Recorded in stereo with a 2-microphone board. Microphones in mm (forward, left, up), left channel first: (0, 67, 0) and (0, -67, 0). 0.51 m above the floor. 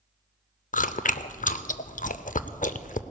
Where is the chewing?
75° left (ahead or behind), 0.5 m.